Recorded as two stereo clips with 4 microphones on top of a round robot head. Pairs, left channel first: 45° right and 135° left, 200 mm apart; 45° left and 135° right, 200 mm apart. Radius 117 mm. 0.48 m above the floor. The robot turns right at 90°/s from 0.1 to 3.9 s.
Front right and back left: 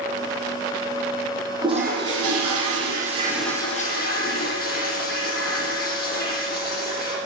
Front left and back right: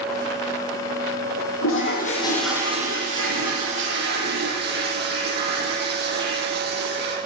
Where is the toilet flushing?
60° left, 7 m; by 7.2 s 95° right, 7 m.